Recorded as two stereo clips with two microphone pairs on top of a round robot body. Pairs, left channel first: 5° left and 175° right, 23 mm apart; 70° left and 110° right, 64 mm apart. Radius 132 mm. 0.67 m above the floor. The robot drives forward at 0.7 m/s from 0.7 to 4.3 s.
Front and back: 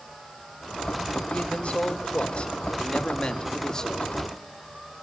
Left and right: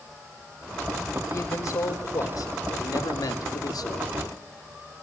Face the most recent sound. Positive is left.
turn(degrees=85)